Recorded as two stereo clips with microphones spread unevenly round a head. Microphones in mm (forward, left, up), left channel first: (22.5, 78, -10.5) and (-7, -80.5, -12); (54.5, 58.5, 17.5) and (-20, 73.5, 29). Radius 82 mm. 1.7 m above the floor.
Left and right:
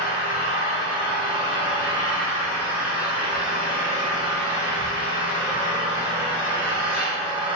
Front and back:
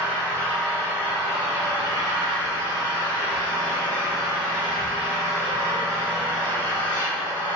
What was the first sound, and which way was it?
An engine running, 175° left.